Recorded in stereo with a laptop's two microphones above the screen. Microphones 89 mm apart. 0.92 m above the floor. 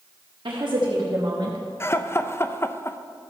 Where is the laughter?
30° left (ahead or behind), 0.5 m.